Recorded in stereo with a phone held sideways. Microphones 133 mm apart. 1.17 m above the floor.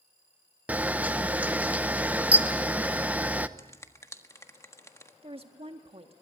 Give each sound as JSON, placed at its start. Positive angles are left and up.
{"t": 0.7, "sound": "a camera shutter", "side_deg": -10, "distance_m": 0.7}
{"t": 3.6, "sound": "a finger snap", "side_deg": 25, "distance_m": 1.4}
{"t": 5.2, "sound": "a woman speaking", "side_deg": -45, "distance_m": 1.6}